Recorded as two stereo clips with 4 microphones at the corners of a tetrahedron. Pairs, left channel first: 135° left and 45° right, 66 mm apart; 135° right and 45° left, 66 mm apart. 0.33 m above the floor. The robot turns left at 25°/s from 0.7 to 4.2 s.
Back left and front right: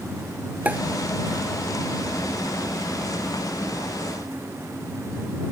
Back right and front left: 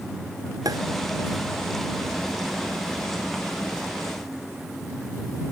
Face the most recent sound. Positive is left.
turn(degrees=-65)